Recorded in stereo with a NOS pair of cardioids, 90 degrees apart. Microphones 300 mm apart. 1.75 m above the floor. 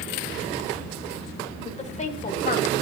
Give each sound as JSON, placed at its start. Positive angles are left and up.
{"t": 1.6, "sound": "a woman speaking", "azimuth_deg": 25, "distance_m": 2.0}